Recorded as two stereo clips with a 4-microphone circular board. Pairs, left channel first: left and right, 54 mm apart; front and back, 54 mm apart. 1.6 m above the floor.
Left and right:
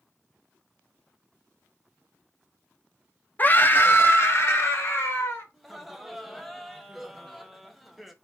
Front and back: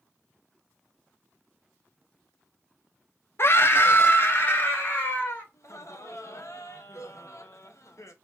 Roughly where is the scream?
Ahead left.